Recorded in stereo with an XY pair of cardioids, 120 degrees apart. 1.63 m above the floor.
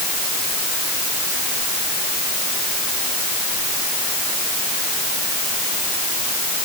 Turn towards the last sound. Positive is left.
No sound to turn to.